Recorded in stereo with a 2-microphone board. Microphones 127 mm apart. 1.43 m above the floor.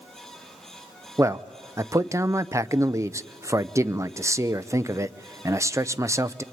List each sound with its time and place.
1.2 s a man speaking: 25° right (ahead or behind), 0.6 m